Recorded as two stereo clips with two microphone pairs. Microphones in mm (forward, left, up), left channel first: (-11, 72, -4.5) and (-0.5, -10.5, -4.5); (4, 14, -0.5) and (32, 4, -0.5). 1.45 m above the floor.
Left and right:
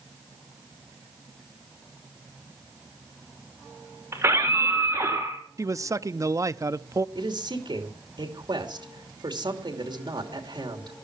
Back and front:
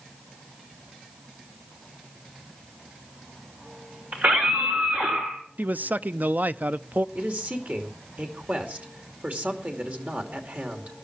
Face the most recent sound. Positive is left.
turn(degrees=-55)